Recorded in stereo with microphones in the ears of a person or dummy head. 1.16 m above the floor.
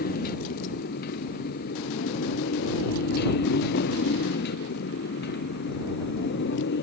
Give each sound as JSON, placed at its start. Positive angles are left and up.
{"t": 0.0, "sound": "a motorcycle", "side_deg": 50}